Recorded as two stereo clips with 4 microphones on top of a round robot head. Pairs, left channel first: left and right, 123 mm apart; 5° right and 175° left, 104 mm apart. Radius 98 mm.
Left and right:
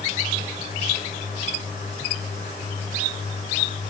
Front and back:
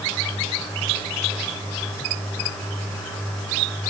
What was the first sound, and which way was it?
Only background noise.